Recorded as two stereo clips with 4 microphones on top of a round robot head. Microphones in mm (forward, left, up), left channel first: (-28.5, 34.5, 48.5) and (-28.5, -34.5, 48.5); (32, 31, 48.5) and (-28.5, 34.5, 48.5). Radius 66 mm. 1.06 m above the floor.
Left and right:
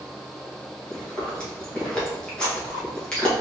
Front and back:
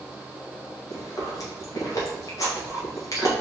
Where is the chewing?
15° left, 1.7 m.